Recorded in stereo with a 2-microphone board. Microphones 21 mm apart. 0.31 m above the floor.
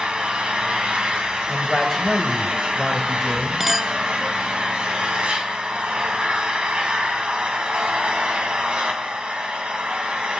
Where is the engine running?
55° right (ahead or behind), 1.7 m.